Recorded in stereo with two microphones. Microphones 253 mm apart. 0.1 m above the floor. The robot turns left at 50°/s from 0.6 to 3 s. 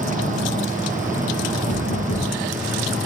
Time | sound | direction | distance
1.7 | knocking | 100° left | 7 m